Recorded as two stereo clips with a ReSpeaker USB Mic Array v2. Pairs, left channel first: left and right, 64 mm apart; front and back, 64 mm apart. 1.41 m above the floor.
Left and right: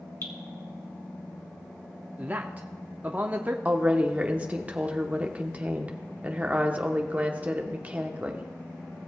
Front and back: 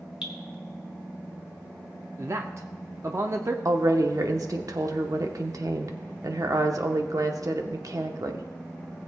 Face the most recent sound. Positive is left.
turn(degrees=-155)